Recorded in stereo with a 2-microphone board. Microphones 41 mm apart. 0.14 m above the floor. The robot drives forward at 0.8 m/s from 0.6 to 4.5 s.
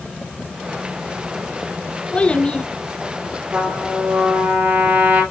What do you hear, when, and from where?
2.1 s a child speaking: 25° left (ahead or behind), 0.9 m
3.5 s a trumpet: 45° right (ahead or behind), 4 m; by 5.2 s 40° right (ahead or behind), 4.5 m